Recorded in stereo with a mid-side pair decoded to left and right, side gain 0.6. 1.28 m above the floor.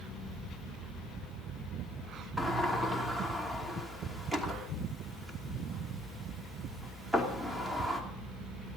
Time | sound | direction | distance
2.4 | a sliding door | 10° right | 3 m